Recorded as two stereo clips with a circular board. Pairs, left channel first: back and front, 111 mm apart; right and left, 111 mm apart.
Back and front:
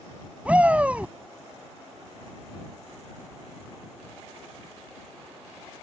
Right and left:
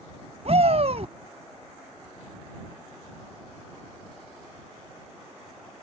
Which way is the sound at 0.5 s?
75° left.